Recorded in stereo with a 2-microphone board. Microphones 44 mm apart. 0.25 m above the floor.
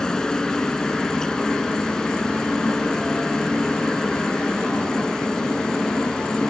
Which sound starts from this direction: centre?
A helicopter, at 0.0 s.